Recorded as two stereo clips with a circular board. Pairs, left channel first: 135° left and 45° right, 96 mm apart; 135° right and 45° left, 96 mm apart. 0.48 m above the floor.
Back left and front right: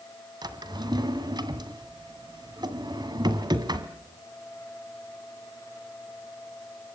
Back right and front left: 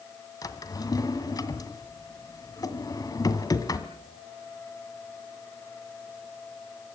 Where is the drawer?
85° right, 2 m.